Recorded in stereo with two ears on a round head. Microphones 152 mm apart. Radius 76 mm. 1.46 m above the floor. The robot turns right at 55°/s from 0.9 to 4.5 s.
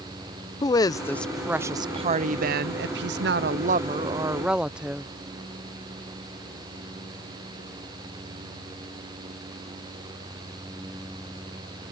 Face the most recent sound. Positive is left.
turn(degrees=-5)